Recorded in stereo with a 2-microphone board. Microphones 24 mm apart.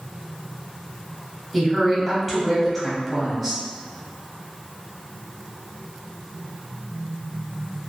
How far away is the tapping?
No tapping in this recording.